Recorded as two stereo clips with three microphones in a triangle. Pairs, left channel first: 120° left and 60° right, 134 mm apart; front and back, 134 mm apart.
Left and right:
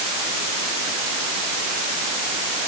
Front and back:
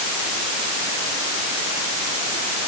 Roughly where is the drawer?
No drawer in this recording.